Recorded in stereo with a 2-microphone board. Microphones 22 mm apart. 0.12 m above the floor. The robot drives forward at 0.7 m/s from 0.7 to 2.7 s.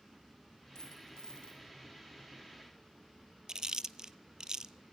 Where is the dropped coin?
30° left (ahead or behind), 2 m; by 1.6 s 40° left (ahead or behind), 1.6 m.